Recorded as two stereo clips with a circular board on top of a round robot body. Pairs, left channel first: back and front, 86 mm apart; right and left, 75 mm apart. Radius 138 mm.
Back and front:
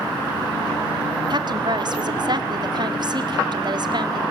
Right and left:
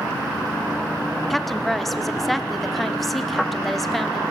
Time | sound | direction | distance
1.3 | a woman speaking | straight ahead | 1.6 m